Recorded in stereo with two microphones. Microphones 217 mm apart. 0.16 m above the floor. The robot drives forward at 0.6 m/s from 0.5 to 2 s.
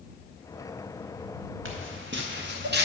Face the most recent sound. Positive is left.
turn(degrees=-55)  # may be behind; listen again after turning